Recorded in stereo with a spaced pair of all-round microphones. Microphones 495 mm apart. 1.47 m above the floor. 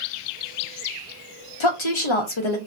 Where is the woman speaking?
70° left (ahead or behind), 0.9 m.